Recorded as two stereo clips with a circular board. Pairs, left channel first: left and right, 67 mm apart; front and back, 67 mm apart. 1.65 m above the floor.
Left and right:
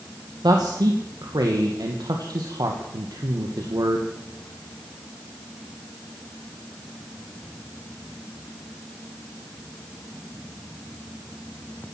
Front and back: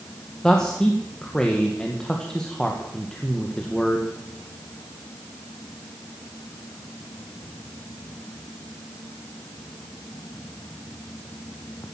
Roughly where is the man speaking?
Right.